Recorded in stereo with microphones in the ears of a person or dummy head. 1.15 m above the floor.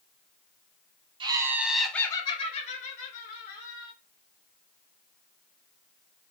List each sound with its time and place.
1.2 s laughter: 20° right (ahead or behind), 0.8 m; by 3.9 s 65° left (ahead or behind), 1.5 m